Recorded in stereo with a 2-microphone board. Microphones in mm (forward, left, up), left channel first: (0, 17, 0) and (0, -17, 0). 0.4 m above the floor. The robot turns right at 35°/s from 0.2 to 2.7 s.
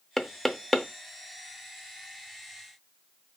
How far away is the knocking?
About 0.5 m.